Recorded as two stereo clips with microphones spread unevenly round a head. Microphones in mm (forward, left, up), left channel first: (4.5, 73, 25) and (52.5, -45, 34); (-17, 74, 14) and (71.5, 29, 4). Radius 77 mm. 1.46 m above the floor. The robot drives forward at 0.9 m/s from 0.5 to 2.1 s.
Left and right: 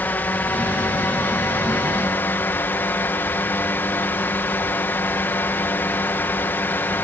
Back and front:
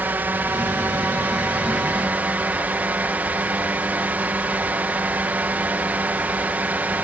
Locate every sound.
0.0 s a drone: 40° left